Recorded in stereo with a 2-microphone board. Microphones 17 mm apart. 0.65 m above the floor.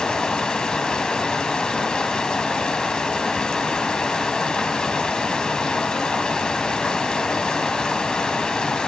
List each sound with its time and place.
0.0 s running water: 70° left (ahead or behind), 3.5 m